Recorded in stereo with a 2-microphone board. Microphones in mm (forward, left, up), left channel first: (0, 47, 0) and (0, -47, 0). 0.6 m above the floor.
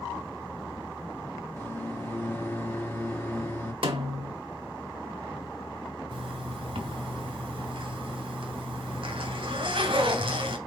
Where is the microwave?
25° left (ahead or behind), 0.8 m.